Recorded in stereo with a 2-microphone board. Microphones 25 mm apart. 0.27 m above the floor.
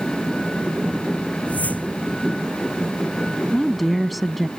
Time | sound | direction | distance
1.5 | a whoosh | 80° left | ?
3.5 | a woman speaking | centre (ahead or behind) | ?